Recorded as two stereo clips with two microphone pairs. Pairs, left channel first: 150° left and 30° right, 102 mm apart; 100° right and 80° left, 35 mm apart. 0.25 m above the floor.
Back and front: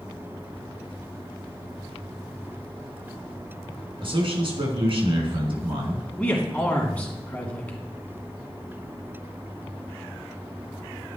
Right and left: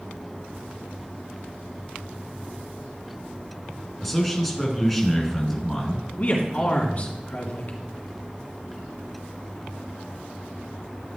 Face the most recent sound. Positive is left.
turn(degrees=-135)